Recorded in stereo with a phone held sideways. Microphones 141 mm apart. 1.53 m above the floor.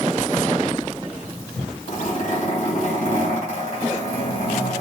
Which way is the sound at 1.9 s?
80° left.